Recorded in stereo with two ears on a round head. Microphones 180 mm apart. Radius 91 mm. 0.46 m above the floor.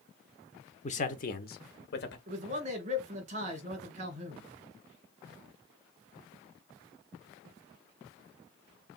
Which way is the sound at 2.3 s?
35° right (ahead or behind).